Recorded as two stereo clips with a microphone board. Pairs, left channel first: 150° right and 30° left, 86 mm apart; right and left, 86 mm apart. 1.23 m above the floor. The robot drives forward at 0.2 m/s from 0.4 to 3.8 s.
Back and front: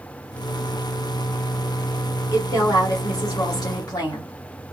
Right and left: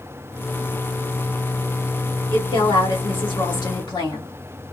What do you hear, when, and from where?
2.3 s a woman speaking: 100° right, 1.9 m; by 4.3 s 110° right, 1.9 m